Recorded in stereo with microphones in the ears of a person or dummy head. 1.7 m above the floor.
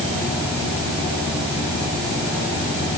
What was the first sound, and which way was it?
Only background noise.